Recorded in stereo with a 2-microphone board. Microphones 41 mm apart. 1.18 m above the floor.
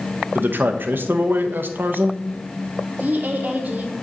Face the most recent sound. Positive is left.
turn(degrees=-50)  # may be behind; listen again after turning